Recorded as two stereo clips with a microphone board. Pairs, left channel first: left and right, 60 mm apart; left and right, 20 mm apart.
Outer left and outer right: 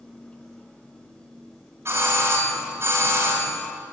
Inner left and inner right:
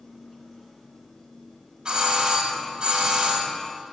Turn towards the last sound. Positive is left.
turn(degrees=-45)  # may be behind; listen again after turning